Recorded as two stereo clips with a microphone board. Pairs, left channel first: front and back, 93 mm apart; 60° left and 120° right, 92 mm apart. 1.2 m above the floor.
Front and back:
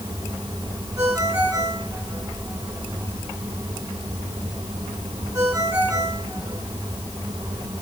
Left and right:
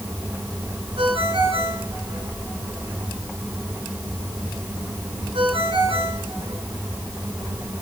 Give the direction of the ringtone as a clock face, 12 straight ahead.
4 o'clock.